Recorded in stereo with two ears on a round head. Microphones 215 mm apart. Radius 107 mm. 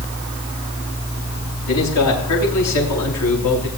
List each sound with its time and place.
1.7 s a man speaking: 85° left, 9.5 m; by 3.7 s 80° left, 8.5 m